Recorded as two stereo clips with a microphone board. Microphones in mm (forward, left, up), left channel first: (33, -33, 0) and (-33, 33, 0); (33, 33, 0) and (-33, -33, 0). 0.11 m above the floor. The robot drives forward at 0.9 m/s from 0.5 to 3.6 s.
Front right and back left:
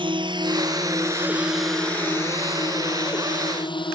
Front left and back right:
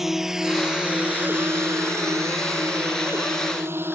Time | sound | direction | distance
0.0 | a drone | 140° left | ?